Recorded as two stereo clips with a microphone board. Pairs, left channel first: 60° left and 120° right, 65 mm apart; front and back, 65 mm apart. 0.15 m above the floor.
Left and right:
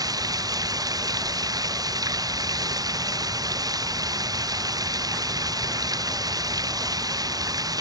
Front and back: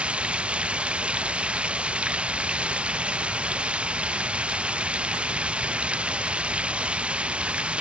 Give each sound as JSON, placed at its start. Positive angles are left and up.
{"t": 0.0, "sound": "running water", "azimuth_deg": -105}